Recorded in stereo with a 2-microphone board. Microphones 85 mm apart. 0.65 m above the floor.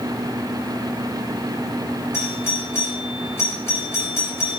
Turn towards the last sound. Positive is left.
turn(degrees=30)  # may be behind; listen again after turning